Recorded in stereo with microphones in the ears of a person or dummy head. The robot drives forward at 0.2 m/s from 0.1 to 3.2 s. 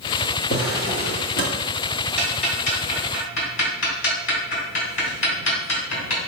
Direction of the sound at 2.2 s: 70° left (ahead or behind).